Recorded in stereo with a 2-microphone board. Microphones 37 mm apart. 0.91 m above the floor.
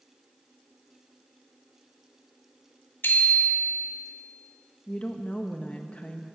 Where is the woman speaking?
35° left (ahead or behind), 0.8 m.